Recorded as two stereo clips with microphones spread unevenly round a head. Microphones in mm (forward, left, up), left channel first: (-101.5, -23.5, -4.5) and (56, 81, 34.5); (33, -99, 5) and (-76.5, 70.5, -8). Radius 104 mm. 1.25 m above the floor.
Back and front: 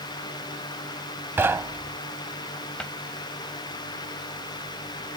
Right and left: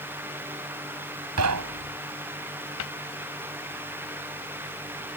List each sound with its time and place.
1.4 s knocking: 110° left
2.8 s a cupboard door: 60° right